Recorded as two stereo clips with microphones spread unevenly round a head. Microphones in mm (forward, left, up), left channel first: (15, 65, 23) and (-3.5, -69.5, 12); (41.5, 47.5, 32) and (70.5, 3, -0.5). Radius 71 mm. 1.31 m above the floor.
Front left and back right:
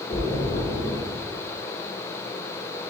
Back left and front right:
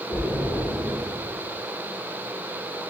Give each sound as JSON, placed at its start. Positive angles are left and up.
{"t": 0.1, "sound": "a splash", "azimuth_deg": 25, "distance_m": 1.1}